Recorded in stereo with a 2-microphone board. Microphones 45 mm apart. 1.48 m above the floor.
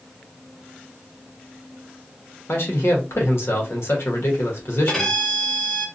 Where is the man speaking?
65° left (ahead or behind), 1.0 m.